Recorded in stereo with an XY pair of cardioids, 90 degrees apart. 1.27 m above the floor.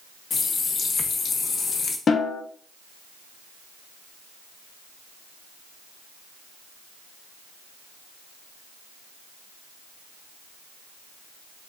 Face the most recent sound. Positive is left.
turn(degrees=50)